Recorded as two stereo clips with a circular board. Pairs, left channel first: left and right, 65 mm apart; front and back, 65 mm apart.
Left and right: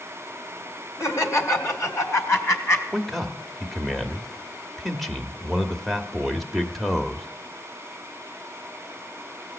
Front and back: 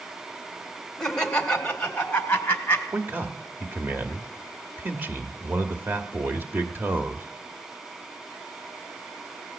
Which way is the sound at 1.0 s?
80° left.